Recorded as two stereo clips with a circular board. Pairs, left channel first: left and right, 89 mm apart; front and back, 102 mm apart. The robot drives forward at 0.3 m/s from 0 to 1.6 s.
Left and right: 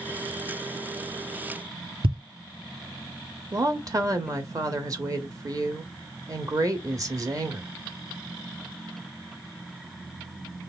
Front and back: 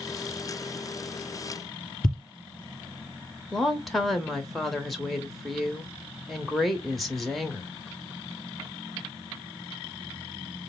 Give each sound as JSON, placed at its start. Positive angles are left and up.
{"t": 2.0, "sound": "a thud", "azimuth_deg": -85, "distance_m": 3.0}
{"t": 3.5, "sound": "a woman speaking", "azimuth_deg": -90, "distance_m": 0.9}